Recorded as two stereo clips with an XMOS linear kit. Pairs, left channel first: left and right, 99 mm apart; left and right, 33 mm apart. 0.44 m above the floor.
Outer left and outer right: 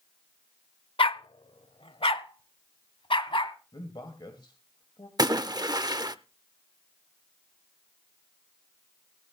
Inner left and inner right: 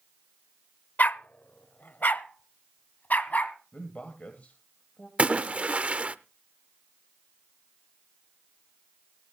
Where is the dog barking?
65° left (ahead or behind), 0.5 m; by 3.6 s 60° left (ahead or behind), 1.7 m.